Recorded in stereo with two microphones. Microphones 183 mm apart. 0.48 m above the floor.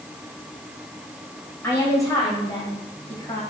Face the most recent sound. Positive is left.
turn(degrees=25)  # may be behind; listen again after turning